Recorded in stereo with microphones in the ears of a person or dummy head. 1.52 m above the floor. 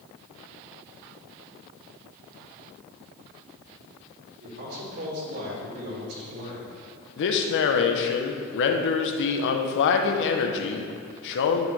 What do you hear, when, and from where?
4.4 s a man speaking: 55° right (ahead or behind), 3 m; by 6.8 s 65° right (ahead or behind), 1.9 m
7.2 s a man speaking: 65° left (ahead or behind), 0.9 m